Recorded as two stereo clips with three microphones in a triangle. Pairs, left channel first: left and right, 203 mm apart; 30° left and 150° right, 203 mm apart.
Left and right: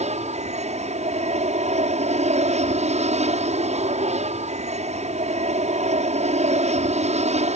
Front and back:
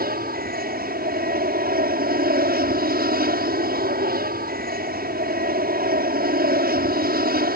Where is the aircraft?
135° right.